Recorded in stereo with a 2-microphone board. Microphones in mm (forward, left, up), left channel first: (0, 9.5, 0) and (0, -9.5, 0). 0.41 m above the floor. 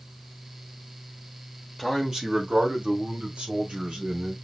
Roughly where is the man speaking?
Centre.